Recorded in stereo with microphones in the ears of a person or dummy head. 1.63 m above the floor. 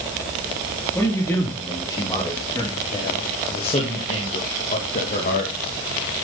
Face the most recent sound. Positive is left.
turn(degrees=60)  # may be behind; listen again after turning